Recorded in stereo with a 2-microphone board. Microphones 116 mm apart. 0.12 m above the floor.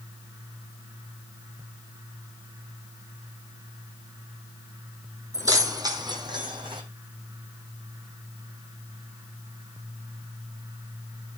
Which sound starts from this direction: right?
Keys jangling, at 5.3 s.